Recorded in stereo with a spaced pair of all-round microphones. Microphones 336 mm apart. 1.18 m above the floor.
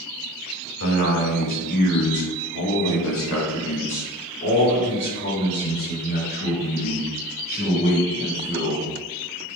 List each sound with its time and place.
0.8 s a man speaking: 55° left (ahead or behind), 1.9 m; by 8.9 s 25° left (ahead or behind), 4.5 m